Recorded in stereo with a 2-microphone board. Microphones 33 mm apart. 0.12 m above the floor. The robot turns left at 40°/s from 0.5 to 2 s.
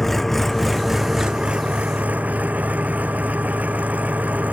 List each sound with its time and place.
0.0 s an engine running: 5° left; by 4.5 s 55° right